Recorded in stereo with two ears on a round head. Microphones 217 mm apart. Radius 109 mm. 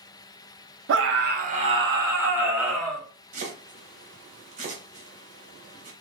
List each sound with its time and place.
0.9 s a scream: 55° right (ahead or behind), 0.7 m; by 3.0 s centre (ahead or behind), 1.3 m
3.3 s chopping: 30° right (ahead or behind), 0.8 m